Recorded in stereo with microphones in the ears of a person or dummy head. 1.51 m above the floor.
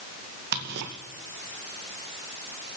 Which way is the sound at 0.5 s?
55° right (ahead or behind).